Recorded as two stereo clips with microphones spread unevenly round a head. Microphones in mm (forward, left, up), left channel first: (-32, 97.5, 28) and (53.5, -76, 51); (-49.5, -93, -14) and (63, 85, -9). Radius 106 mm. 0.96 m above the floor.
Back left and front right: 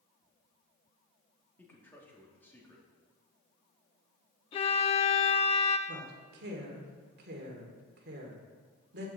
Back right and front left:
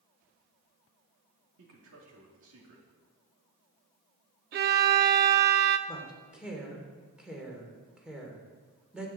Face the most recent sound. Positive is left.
turn(degrees=-30)